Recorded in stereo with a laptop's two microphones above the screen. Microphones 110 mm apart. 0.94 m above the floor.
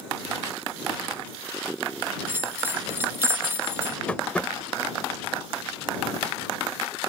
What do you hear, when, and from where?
2.3 s a bell: 20° right (ahead or behind)
4.1 s tapping: 10° left (ahead or behind)